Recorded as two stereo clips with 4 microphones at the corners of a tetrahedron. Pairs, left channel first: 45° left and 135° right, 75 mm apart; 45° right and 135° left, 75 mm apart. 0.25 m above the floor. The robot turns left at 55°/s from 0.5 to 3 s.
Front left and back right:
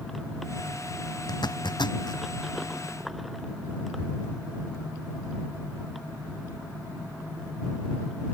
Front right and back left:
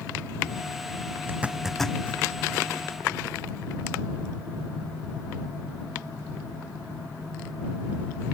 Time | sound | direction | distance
1.3 | a zipper | 70° left | ?